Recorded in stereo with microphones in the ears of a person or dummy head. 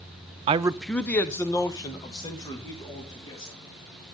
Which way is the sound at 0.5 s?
35° right (ahead or behind).